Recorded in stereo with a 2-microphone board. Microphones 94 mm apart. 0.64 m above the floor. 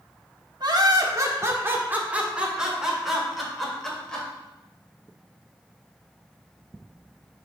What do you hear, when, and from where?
0.6 s laughter: 50° right (ahead or behind), 1.1 m; by 4.3 s 10° left (ahead or behind), 2 m